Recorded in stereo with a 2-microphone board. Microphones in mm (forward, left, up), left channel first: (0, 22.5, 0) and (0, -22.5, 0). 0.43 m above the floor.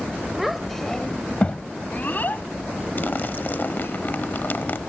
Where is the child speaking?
10° right (ahead or behind); by 4.0 s 60° left (ahead or behind).